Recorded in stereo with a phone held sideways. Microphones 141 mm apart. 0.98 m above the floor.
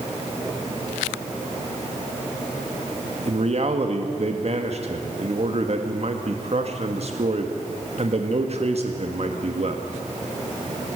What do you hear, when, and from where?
3.2 s a man speaking: 50° right (ahead or behind), 1.6 m